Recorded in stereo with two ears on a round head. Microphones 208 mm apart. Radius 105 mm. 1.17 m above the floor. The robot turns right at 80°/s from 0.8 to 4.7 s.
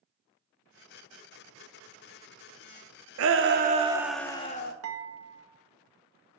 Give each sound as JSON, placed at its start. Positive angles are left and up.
{"t": 3.2, "sound": "a shout", "azimuth_deg": -75, "distance_m": 1.0}
{"t": 4.8, "sound": "dishes clattering", "side_deg": -70, "distance_m": 1.0}